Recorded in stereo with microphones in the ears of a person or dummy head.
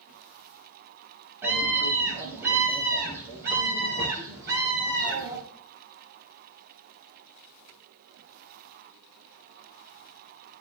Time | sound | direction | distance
1.4 | a scream | 10° right (ahead or behind) | 8 m